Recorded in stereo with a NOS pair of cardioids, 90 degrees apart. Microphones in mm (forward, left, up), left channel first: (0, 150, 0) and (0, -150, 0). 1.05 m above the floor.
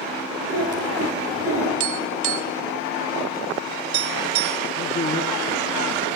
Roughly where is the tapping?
Right.